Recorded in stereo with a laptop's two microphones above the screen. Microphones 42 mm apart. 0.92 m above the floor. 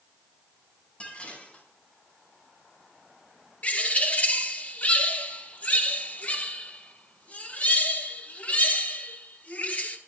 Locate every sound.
1.0 s dishes clattering: 30° left (ahead or behind), 4.5 m
3.6 s a bird: 35° left (ahead or behind), 1.3 m